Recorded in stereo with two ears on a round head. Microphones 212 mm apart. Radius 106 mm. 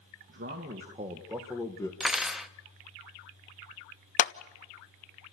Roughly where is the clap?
Left.